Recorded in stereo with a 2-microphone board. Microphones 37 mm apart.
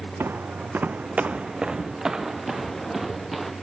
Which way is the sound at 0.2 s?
70° right (ahead or behind).